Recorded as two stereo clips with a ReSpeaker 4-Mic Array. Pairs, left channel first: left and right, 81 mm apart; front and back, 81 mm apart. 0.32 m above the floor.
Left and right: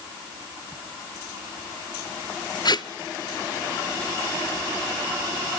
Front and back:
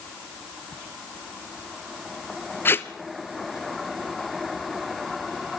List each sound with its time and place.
2.6 s tape being pulled: 60° left, 0.9 m